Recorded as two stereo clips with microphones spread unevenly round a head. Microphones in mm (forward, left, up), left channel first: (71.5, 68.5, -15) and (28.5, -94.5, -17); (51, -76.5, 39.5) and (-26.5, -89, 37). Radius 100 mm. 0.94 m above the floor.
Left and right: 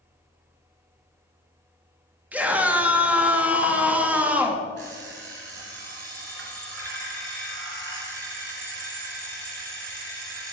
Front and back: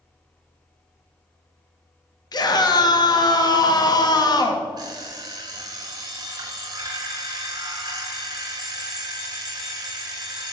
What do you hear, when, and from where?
2.3 s a scream: 25° right, 1.3 m
4.8 s an alarm clock: 130° right, 2 m